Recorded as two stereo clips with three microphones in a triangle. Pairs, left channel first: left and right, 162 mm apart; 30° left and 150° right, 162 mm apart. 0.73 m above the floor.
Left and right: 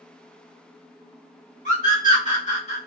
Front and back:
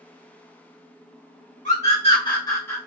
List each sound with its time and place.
1.6 s a scream: 60° left, 2.0 m; by 2.8 s 105° left, 1.4 m